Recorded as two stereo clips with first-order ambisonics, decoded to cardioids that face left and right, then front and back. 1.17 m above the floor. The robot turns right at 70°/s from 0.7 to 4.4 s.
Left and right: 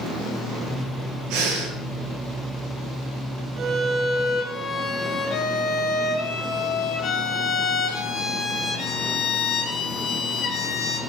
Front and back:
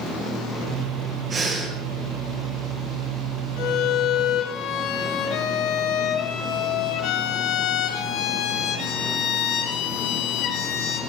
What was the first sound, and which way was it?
Breathing, 115° right.